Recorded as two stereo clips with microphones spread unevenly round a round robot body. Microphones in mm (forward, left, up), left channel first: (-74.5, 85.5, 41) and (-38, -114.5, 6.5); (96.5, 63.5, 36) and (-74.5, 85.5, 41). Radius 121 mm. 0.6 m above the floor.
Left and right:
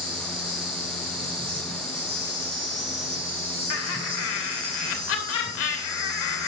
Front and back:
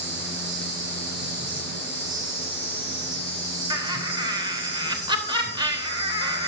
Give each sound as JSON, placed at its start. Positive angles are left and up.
{"t": 0.0, "sound": "an insect", "azimuth_deg": -145, "distance_m": 4.0}
{"t": 3.7, "sound": "laughter", "azimuth_deg": 110, "distance_m": 3.0}